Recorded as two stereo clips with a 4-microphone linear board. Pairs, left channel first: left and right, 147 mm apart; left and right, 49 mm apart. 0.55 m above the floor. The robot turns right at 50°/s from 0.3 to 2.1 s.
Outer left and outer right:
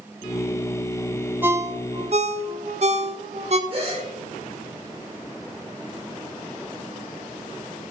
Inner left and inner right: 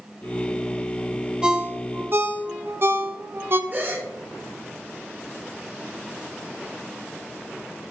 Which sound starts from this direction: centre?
A ringtone, at 1.4 s.